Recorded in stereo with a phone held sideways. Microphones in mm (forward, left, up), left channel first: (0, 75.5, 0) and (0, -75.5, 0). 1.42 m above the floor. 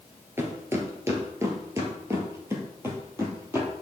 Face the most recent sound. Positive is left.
turn(degrees=-15)  # may be behind; listen again after turning